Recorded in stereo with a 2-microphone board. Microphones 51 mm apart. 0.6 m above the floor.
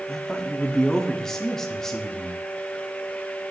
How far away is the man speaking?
About 1.0 m.